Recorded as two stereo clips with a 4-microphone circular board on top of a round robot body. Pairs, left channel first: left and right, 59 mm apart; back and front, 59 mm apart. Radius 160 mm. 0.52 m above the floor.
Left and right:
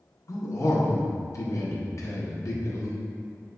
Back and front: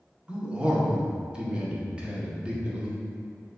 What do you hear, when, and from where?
0.3 s a man speaking: 70° left, 1.8 m